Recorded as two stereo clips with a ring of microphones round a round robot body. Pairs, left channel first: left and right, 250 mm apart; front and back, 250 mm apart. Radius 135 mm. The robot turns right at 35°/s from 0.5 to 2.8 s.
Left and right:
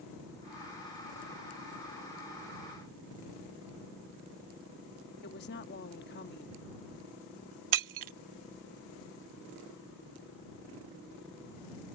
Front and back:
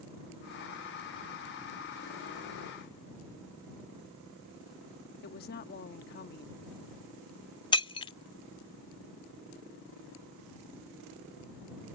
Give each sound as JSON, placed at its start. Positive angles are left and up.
{"t": 5.2, "sound": "a woman speaking", "azimuth_deg": 45}
{"t": 7.7, "sound": "breaking glass", "azimuth_deg": -70}